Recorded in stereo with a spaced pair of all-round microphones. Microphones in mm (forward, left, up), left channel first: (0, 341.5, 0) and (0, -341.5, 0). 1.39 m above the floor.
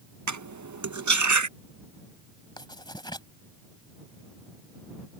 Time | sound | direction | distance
0.3 | cutlery clinking | 30° right (ahead or behind) | ?
2.6 | writing | 5° left (ahead or behind) | ?